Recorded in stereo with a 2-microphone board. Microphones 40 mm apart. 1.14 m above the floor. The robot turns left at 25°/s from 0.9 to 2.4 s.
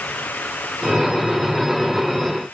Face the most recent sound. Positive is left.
No sound to turn to.